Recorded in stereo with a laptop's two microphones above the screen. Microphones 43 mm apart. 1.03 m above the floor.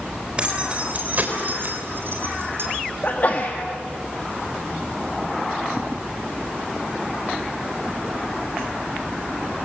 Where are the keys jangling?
20° right (ahead or behind), 3.5 m; by 2.7 s 65° right (ahead or behind), 4 m.